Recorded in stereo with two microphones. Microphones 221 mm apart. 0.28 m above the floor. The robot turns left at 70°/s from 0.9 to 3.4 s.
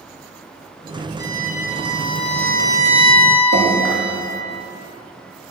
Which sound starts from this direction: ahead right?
A violin, at 1.2 s.